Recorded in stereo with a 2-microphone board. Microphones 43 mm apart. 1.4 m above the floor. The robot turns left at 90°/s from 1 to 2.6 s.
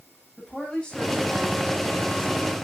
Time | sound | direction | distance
0.4 | a woman speaking | 30° left | 9 m